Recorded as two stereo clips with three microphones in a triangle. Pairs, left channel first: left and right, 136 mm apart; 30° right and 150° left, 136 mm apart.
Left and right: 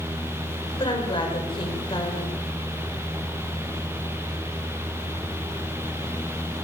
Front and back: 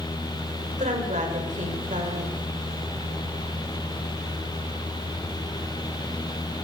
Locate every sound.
0.8 s a woman speaking: 135° left, 6 m